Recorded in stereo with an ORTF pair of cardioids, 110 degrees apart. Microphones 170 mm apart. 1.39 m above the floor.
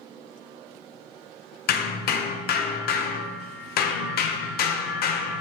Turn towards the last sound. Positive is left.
turn(degrees=65)